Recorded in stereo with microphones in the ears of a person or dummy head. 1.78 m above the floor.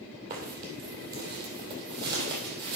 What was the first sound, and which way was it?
Footsteps, 50° right (ahead or behind).